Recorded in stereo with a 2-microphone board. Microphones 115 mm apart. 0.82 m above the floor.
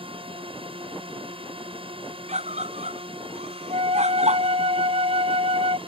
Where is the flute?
60° right (ahead or behind).